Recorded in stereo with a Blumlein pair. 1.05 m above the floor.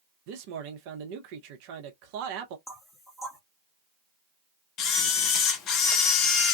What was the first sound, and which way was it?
A man speaking, 45° right.